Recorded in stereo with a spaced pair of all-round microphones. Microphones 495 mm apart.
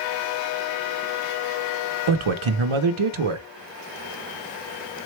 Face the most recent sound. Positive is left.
turn(degrees=-85)